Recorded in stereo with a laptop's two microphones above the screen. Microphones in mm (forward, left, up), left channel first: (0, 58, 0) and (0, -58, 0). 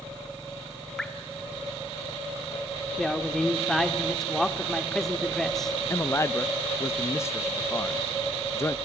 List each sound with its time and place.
1.0 s dripping: 5° left (ahead or behind), 2.0 m
3.0 s a woman speaking: 5° left (ahead or behind), 2 m
5.9 s a man speaking: 25° left (ahead or behind), 0.8 m